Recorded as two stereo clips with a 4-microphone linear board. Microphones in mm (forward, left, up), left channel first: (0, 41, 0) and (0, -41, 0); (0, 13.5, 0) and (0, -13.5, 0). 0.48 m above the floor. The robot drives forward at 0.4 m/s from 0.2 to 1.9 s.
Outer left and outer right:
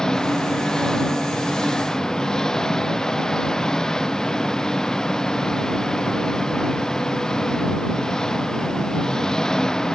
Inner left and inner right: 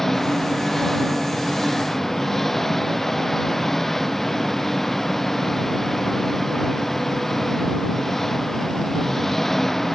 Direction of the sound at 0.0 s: 10° left (ahead or behind).